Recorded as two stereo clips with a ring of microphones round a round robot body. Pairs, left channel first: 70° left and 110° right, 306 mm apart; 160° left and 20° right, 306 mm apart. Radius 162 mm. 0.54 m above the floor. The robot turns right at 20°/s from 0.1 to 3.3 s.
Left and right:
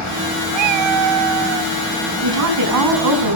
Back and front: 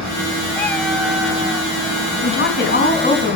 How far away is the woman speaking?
About 4.5 m.